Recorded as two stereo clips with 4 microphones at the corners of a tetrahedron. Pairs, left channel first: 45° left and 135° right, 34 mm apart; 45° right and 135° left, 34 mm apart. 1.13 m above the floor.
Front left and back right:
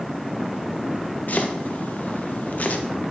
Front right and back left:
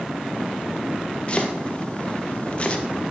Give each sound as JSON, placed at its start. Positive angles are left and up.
{"t": 1.3, "sound": "chopping", "azimuth_deg": 10, "distance_m": 1.1}